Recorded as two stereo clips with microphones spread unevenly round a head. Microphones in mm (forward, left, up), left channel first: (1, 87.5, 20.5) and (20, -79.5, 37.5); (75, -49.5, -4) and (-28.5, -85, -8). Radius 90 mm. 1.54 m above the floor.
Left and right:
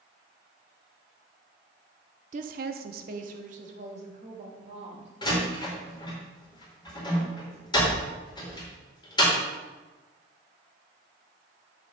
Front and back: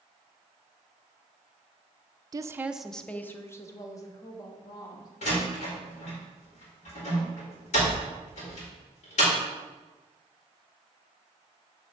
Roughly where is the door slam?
Ahead left.